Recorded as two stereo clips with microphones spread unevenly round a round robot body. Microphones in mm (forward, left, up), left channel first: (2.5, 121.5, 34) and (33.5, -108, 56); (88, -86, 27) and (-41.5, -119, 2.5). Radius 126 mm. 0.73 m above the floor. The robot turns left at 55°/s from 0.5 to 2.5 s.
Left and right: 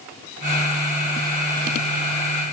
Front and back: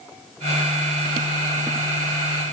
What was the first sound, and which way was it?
Only background noise.